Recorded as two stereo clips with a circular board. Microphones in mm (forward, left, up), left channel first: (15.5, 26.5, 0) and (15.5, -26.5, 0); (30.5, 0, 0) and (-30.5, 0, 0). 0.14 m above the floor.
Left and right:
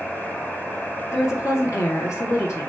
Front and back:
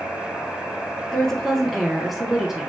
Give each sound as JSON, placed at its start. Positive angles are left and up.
{"t": 1.1, "sound": "a woman speaking", "azimuth_deg": 80, "distance_m": 2.5}